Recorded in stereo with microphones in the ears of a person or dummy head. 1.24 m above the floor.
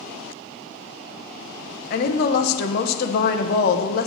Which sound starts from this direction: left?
A woman speaking, at 1.9 s.